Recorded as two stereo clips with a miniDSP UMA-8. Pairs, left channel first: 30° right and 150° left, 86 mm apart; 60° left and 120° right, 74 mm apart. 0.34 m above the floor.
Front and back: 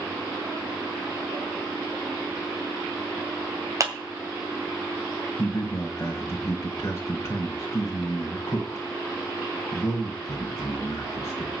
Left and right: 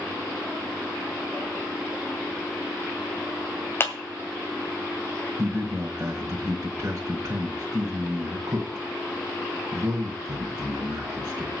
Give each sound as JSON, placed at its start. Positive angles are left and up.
{"t": 3.8, "sound": "a clap", "azimuth_deg": 115, "distance_m": 2.0}
{"t": 5.4, "sound": "a man speaking", "azimuth_deg": -80, "distance_m": 1.6}